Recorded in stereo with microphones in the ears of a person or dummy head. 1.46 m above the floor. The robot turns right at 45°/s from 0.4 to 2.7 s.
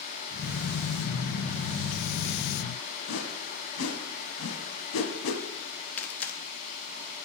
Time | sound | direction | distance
3.1 | a whoosh | 70° left (ahead or behind) | 1.0 m
6.0 | tearing paper | 10° left (ahead or behind) | 0.7 m